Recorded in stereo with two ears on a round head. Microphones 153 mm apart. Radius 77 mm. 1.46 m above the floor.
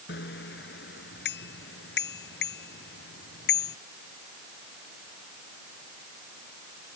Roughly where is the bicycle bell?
Left.